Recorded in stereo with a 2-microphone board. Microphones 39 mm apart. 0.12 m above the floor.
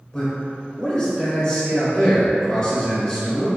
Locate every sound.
0.1 s a man speaking: 20° left (ahead or behind), 1.1 m